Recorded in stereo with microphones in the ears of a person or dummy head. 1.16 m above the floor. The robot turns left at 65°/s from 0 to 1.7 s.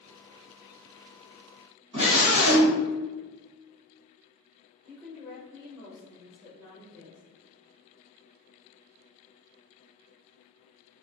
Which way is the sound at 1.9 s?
35° right (ahead or behind).